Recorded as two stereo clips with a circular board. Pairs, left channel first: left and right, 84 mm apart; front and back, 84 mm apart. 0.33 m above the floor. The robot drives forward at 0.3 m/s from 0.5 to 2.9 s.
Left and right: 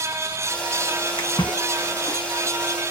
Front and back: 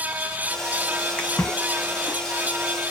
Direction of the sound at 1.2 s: 70° left.